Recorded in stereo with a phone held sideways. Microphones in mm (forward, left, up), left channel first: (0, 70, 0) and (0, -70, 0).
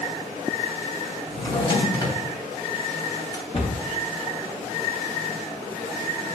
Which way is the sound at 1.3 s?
25° left (ahead or behind).